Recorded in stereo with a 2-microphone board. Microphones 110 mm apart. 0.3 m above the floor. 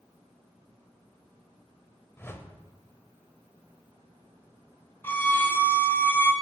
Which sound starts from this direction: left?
A whoosh, at 2.2 s.